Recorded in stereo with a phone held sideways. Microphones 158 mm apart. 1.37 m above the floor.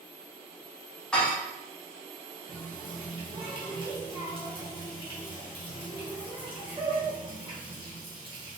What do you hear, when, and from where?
1.1 s dishes clattering: 5° left (ahead or behind), 1.1 m
2.5 s a running tap: 30° right (ahead or behind), 1.1 m